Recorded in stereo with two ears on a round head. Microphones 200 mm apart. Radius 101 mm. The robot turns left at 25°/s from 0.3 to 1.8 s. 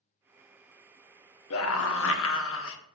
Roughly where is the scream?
Left.